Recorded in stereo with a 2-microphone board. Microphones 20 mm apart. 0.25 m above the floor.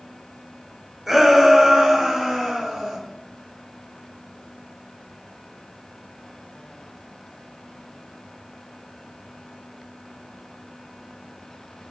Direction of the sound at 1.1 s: 15° right (ahead or behind).